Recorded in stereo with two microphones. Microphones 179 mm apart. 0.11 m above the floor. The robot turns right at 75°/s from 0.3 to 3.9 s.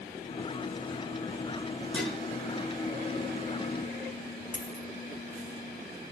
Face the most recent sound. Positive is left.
turn(degrees=45)  # may be behind; listen again after turning